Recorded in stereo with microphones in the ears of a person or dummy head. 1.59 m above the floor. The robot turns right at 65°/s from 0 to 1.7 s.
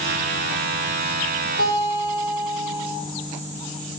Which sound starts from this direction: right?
A guitar, at 1.6 s.